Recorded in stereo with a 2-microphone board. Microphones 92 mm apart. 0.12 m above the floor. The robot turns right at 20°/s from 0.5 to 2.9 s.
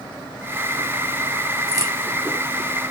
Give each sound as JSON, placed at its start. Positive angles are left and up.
{"t": 1.7, "sound": "a crack", "side_deg": -40, "distance_m": 0.9}